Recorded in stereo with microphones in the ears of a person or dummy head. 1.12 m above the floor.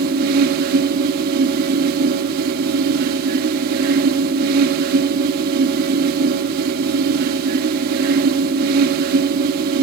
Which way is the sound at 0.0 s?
55° right (ahead or behind).